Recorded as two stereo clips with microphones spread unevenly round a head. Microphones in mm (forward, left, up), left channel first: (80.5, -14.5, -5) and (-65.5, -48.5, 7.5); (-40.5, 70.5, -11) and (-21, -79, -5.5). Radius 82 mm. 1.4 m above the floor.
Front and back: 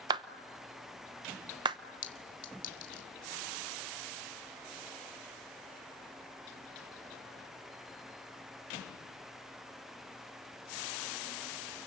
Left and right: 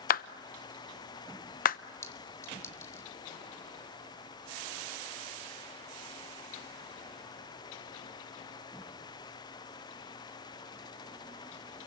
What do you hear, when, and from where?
0.1 s a clap: 130° left, 0.8 m
2.0 s a clink: 25° left, 2.5 m